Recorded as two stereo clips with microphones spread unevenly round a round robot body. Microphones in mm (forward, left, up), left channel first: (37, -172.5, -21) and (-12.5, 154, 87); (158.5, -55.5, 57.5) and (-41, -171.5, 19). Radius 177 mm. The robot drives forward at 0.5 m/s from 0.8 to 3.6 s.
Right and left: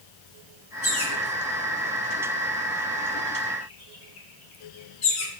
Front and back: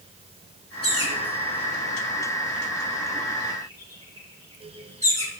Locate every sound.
0.8 s a bird: 35° right, 6 m; by 5.3 s 45° right, 5 m